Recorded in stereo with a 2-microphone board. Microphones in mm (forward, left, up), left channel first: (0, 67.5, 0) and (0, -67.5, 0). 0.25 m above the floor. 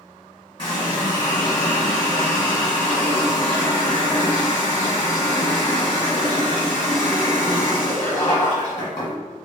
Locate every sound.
0.6 s a running tap: 35° left (ahead or behind), 1.4 m